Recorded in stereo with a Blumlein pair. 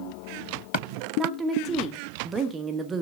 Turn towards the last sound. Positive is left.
turn(degrees=-20)